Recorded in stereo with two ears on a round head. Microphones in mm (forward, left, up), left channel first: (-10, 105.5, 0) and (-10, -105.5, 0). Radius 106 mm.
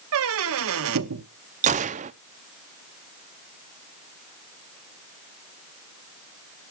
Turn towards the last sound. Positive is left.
turn(degrees=-30)  # may be behind; listen again after turning